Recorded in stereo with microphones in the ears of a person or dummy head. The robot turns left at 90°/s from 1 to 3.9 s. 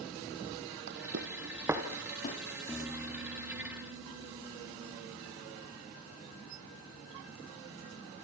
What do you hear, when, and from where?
0.9 s footsteps: 55° right (ahead or behind), 2 m; by 2.4 s 45° left (ahead or behind), 2.5 m
2.7 s a piano: 10° left, 3.5 m; by 5.4 s 95° right, 3.5 m